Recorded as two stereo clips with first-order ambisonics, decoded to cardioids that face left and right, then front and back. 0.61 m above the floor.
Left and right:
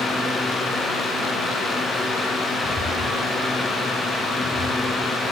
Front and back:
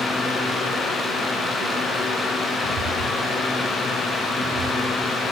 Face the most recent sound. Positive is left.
turn(degrees=180)